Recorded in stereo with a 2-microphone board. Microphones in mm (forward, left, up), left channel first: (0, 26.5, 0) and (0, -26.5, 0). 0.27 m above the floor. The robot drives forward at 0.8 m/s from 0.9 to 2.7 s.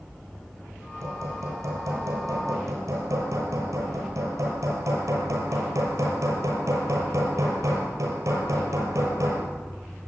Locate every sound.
1.0 s hammering: 70° right (ahead or behind), 6.5 m; by 9.5 s 80° right, 6 m